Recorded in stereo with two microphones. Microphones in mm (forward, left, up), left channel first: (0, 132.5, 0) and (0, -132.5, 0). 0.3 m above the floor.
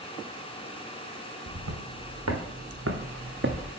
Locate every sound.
1.5 s footsteps: 80° right, 2 m; by 3.7 s 40° right (ahead or behind), 1.2 m